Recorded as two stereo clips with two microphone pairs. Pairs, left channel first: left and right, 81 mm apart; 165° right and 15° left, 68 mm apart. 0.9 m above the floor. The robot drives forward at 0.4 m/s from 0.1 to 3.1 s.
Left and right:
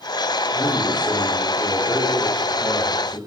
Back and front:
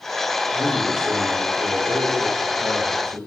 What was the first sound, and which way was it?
A man speaking, 10° left.